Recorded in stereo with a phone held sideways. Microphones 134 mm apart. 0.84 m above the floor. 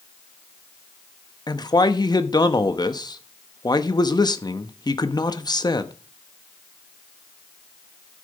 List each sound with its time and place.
1.5 s a man speaking: 30° left (ahead or behind), 0.9 m